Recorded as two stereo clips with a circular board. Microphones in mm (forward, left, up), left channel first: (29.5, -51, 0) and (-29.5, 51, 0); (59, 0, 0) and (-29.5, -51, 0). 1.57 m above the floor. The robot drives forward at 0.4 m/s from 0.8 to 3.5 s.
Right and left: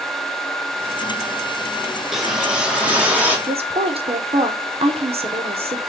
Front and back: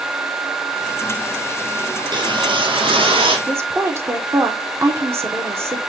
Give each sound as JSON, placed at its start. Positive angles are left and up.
{"t": 2.0, "sound": "a whoosh", "azimuth_deg": -150, "distance_m": 0.9}
{"t": 3.5, "sound": "a woman speaking", "azimuth_deg": 145, "distance_m": 0.9}